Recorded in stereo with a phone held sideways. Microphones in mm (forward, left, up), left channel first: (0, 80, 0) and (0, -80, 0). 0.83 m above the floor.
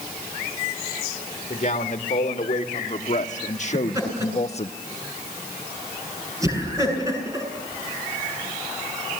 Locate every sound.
1.5 s a man speaking: 50° left (ahead or behind), 2.5 m; by 4.7 s 40° left (ahead or behind), 0.8 m
3.7 s laughter: 20° right (ahead or behind), 8.5 m